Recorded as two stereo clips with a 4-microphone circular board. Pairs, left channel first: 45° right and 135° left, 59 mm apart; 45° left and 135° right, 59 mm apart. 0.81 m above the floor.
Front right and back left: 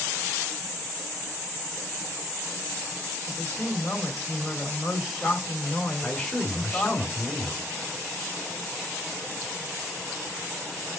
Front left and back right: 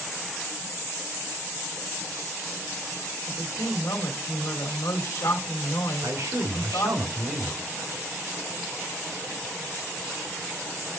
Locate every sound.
3.3 s a woman speaking: 50° left, 1.6 m
6.0 s a man speaking: 125° right, 2.5 m